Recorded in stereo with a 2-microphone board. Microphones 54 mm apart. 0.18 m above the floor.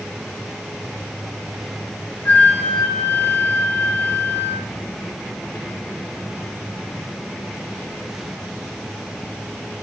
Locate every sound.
2.2 s a flute: 40° left (ahead or behind), 0.9 m